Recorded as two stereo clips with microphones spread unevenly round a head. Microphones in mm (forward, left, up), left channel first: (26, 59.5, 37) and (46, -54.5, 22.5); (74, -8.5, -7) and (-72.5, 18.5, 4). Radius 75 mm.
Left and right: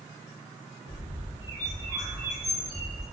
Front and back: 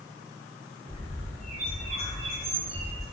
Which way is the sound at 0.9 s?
135° right.